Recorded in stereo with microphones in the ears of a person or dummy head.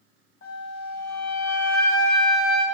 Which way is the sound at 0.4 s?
75° left (ahead or behind).